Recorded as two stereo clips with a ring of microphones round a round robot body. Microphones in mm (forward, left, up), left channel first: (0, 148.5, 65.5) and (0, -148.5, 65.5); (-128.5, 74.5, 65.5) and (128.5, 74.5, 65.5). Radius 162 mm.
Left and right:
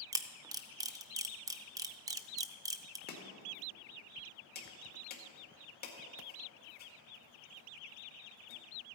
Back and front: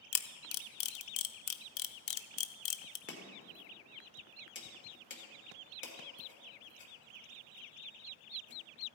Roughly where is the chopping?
Behind left.